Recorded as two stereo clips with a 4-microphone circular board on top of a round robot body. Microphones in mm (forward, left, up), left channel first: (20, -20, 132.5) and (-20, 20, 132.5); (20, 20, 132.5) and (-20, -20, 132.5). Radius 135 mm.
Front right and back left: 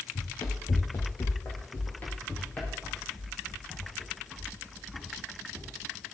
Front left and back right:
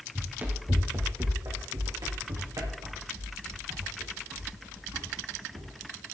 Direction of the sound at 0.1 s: 75° right.